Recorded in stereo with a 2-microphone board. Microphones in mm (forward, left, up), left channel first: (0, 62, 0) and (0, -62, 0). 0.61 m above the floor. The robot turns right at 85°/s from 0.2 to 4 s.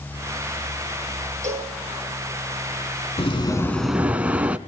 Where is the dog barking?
I don't hear a dog barking.